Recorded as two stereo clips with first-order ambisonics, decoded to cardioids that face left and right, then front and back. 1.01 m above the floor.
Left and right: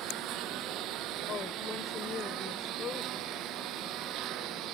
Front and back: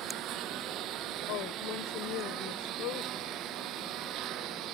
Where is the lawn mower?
135° right.